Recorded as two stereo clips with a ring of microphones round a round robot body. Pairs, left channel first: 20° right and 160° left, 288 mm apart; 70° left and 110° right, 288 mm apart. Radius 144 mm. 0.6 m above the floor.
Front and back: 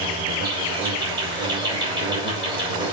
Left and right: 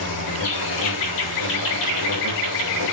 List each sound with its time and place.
0.0 s an insect: 85° left, 5.5 m